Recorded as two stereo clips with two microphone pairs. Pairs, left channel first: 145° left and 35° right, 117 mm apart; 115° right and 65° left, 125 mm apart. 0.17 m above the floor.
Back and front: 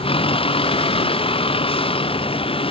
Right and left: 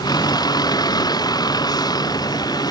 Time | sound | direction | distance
0.0 | a vehicle | 175° right | ?